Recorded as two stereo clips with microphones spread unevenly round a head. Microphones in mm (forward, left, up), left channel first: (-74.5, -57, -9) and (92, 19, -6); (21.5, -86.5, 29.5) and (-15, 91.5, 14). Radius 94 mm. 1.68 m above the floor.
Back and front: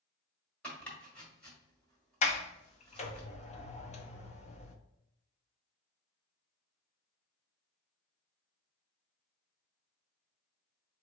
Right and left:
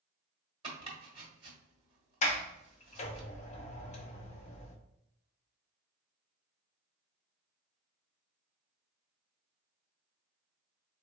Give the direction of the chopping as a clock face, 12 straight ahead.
8 o'clock.